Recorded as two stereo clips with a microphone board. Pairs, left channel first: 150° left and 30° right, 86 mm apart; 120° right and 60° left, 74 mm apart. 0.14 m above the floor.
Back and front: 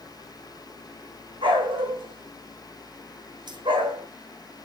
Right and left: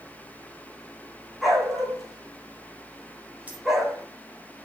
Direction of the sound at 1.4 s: 30° right.